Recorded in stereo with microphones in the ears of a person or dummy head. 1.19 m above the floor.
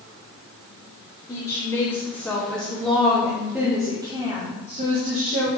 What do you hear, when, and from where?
1.3 s a woman speaking: 10° left (ahead or behind), 2 m; by 5.5 s 55° right (ahead or behind), 1.4 m